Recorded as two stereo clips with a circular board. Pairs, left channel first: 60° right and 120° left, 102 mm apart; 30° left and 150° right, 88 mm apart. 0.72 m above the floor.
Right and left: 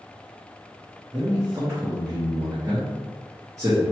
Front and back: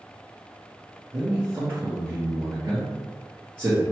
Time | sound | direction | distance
1.1 | a man speaking | 160° left | 1.4 m